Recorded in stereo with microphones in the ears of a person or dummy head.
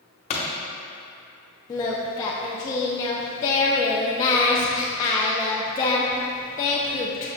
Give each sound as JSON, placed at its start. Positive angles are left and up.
{"t": 0.3, "sound": "a pop", "side_deg": 35, "distance_m": 1.2}
{"t": 1.7, "sound": "singing", "side_deg": 20, "distance_m": 0.7}